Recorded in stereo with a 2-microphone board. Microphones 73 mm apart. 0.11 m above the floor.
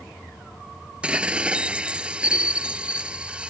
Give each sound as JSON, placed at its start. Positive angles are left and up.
{"t": 1.0, "sound": "dishes clattering", "side_deg": -15}